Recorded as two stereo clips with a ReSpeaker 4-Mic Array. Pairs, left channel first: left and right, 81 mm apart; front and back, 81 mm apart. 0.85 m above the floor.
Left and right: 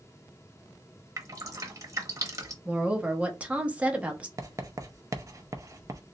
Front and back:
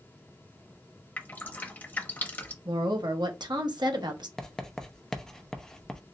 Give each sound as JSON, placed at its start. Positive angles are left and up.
{"t": 1.2, "sound": "dripping", "azimuth_deg": -60, "distance_m": 0.8}
{"t": 2.6, "sound": "a woman speaking", "azimuth_deg": -160, "distance_m": 1.0}
{"t": 4.4, "sound": "writing", "azimuth_deg": -80, "distance_m": 0.7}